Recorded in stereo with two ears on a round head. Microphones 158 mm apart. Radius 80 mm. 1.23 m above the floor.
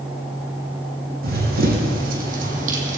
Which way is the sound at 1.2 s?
60° right (ahead or behind).